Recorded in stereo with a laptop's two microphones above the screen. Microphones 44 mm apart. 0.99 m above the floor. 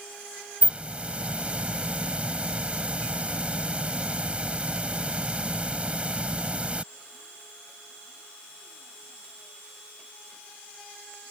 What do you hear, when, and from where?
0.6 s a hiss: 30° right (ahead or behind)